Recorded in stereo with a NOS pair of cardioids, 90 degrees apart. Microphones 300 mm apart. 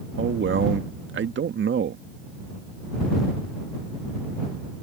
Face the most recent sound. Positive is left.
turn(degrees=-40)